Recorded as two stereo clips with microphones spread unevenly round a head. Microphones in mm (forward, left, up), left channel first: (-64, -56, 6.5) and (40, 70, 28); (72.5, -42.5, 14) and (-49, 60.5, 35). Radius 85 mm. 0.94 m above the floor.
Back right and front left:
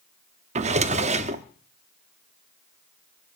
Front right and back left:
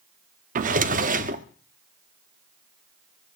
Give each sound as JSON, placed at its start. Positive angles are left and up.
{"t": 0.6, "sound": "a drawer", "azimuth_deg": 100, "distance_m": 0.9}